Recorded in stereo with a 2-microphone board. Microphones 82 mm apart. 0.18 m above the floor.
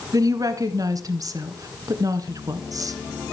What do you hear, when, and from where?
0.1 s a woman speaking: 45° right (ahead or behind), 1.6 m